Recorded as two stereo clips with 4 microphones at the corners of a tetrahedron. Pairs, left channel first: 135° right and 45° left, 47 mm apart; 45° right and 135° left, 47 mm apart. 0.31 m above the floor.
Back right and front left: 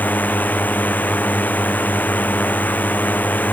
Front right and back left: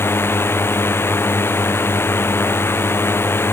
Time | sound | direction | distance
0.0 | a drone | 80° right | ?